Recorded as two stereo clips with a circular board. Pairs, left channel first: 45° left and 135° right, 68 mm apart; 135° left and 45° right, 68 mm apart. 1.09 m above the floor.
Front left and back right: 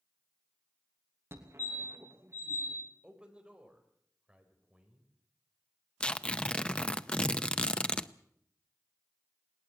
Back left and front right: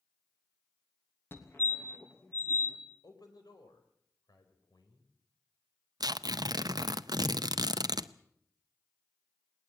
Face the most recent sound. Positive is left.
turn(degrees=-30)